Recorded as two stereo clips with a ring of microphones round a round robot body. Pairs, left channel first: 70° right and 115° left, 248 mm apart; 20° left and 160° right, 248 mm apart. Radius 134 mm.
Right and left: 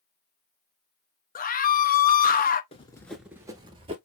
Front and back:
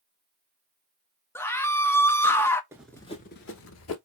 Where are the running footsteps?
95° right, 0.6 m; by 4.0 s 45° left, 1.1 m.